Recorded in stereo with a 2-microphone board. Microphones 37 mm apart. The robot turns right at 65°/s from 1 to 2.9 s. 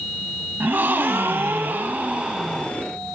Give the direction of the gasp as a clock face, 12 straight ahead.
4 o'clock.